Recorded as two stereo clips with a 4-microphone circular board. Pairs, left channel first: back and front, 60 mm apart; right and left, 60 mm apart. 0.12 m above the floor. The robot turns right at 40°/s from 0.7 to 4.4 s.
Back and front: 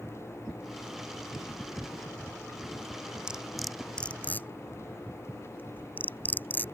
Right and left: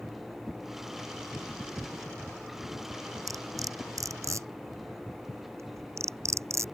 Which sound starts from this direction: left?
Cutlery clinking, at 3.3 s.